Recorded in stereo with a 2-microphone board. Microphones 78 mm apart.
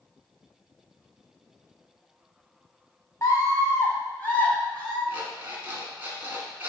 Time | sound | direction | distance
3.2 | a scream | 45° left (ahead or behind) | 1.7 m
5.1 | an alarm clock | 25° right (ahead or behind) | 1.6 m